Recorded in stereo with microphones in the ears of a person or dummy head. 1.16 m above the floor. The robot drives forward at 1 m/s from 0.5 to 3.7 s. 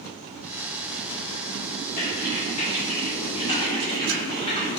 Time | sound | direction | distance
2.0 | typing on a keyboard | 40° left (ahead or behind) | 3 m